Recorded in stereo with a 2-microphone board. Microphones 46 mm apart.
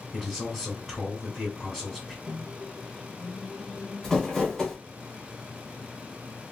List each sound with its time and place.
0.1 s a man speaking: 10° left (ahead or behind), 1.8 m
2.3 s a microwave: 5° left (ahead or behind), 0.8 m
4.0 s crumpling: 10° left (ahead or behind), 2 m